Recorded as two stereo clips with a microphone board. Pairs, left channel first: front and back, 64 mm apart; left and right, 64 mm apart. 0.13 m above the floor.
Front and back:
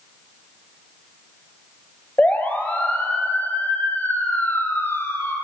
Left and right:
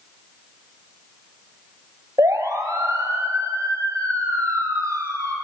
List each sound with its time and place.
2.2 s a siren: 65° right, 3.5 m; by 5.3 s 55° right, 5.5 m